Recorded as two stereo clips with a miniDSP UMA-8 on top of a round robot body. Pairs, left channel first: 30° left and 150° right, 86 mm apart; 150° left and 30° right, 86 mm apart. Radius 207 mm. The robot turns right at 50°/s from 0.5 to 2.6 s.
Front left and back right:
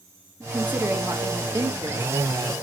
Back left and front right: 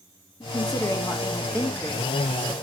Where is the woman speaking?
140° left, 1.7 m; by 2.5 s 120° right, 1.7 m.